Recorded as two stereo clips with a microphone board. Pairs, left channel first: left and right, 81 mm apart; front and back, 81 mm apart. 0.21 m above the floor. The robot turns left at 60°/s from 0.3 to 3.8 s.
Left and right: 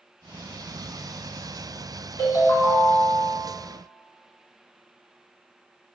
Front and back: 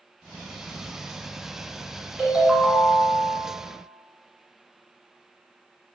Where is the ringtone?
110° left, 1.1 m; by 3.4 s 40° left, 1.1 m.